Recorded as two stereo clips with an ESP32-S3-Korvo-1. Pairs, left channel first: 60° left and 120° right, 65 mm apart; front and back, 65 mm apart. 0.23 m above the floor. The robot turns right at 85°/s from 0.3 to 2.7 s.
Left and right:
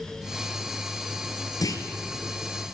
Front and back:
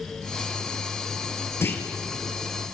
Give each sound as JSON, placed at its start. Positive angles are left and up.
{"t": 1.6, "sound": "a clunk", "azimuth_deg": 45, "distance_m": 2.5}